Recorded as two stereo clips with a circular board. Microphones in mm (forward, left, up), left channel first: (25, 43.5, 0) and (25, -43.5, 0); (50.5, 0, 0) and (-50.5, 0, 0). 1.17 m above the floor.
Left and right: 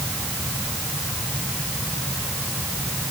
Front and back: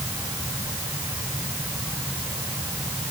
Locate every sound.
Only background noise.